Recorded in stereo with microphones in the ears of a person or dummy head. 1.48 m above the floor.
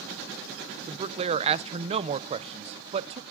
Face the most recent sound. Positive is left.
turn(degrees=-35)  # may be behind; listen again after turning